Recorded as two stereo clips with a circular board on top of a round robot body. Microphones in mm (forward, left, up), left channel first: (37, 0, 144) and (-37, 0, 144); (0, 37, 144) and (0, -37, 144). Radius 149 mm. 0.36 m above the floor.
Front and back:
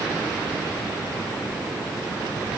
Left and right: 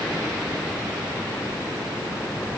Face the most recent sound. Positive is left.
No sound to turn to.